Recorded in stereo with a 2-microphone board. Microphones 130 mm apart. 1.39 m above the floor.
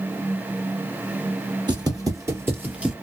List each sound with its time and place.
1.7 s footsteps: 35° right (ahead or behind), 1.8 m; by 2.9 s 5° right (ahead or behind), 1.4 m